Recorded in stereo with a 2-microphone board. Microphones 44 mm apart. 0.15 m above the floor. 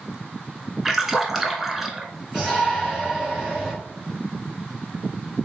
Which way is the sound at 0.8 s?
5° right (ahead or behind).